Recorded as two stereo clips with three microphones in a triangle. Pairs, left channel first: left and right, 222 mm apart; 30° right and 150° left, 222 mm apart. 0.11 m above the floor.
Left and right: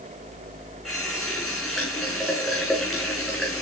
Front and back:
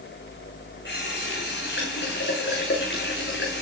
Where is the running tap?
Straight ahead, 7.5 m.